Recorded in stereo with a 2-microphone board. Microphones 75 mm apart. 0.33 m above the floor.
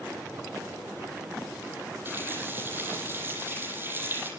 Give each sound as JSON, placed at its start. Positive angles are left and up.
{"t": 2.0, "sound": "a running tap", "side_deg": -30, "distance_m": 8.0}